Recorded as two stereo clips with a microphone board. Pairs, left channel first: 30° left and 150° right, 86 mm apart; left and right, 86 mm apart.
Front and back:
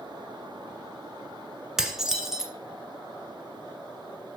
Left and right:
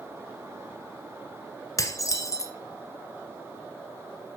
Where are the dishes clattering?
130° left, 1.2 m.